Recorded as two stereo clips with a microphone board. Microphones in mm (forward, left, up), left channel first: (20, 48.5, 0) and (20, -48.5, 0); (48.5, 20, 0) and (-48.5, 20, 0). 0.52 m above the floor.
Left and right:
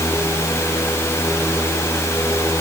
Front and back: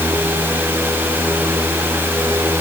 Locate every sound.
Only background noise.